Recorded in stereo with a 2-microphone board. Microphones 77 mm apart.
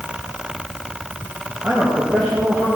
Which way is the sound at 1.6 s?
5° left (ahead or behind).